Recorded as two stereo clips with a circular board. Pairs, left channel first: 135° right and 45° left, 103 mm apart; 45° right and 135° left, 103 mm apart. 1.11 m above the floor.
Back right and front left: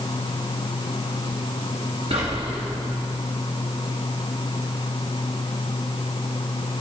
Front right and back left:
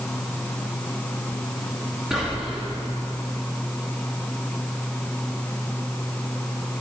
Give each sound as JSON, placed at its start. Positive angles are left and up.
{"t": 2.1, "sound": "whispering", "azimuth_deg": 55, "distance_m": 1.0}